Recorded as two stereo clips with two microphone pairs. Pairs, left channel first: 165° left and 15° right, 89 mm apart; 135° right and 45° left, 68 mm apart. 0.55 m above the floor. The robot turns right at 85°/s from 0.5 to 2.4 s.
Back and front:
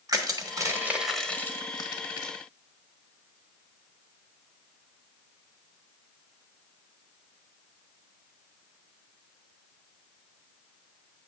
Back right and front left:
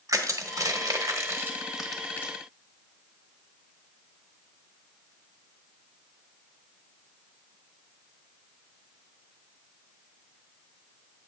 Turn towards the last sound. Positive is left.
turn(degrees=180)